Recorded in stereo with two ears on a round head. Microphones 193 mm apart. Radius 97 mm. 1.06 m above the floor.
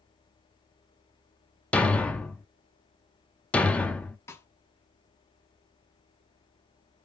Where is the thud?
5° left (ahead or behind), 0.5 m.